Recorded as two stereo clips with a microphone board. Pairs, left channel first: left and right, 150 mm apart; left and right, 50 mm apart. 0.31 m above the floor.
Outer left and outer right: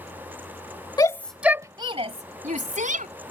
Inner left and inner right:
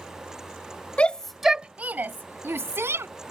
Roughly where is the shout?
Left.